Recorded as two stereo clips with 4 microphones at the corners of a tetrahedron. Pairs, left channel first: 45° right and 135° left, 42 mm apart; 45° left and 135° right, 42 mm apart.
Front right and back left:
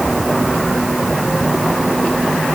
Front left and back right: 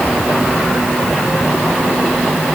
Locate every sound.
Only background noise.